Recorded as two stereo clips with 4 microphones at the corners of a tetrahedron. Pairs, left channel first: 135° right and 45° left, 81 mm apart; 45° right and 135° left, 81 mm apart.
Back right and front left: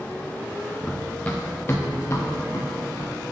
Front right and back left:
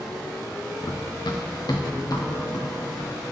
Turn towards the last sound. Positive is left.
turn(degrees=-90)